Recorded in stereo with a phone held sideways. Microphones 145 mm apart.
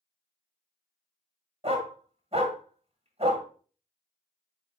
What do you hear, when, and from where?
1.6 s a dog barking: 45° right (ahead or behind), 1.4 m